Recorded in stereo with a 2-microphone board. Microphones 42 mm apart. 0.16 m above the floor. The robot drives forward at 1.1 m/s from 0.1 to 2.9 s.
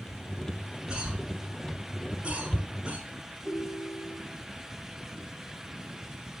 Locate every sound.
0.9 s a cough: 20° right (ahead or behind), 2.5 m; by 3.0 s 25° right (ahead or behind), 1.7 m
3.5 s a ringtone: 40° right (ahead or behind), 2.5 m